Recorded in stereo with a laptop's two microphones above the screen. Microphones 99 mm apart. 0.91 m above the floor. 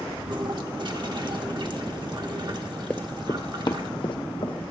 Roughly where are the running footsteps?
Centre.